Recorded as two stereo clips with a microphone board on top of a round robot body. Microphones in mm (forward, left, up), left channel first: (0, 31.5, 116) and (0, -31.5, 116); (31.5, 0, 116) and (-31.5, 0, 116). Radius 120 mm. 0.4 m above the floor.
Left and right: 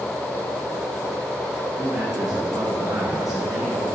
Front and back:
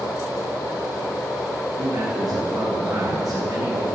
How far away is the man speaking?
About 3.5 m.